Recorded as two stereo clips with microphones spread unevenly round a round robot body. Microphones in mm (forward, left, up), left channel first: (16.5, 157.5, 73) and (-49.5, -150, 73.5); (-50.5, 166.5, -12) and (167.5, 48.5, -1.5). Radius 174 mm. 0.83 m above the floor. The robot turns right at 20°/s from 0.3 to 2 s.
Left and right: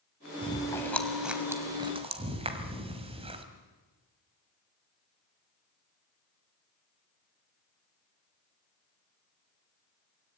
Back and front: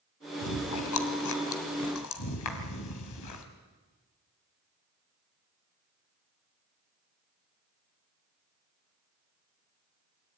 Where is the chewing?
155° left, 2 m; by 3.5 s 175° right, 2 m.